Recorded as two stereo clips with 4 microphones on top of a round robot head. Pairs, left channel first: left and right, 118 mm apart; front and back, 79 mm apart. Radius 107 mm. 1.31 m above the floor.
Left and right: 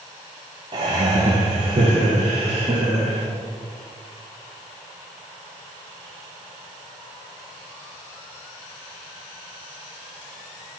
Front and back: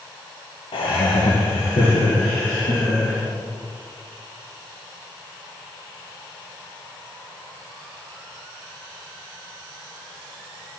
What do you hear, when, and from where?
0.7 s laughter: 30° right, 0.6 m; by 3.3 s 40° right, 1.9 m